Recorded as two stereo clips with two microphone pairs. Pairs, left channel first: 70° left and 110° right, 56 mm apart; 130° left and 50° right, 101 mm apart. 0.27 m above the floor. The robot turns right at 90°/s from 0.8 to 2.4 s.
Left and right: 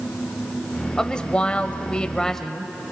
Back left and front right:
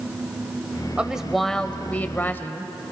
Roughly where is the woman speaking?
Ahead.